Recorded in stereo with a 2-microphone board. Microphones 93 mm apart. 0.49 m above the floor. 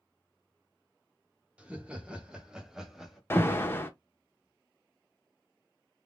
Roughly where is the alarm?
Left.